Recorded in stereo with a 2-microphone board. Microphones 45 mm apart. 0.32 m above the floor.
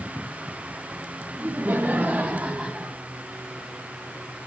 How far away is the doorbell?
No doorbell in this recording.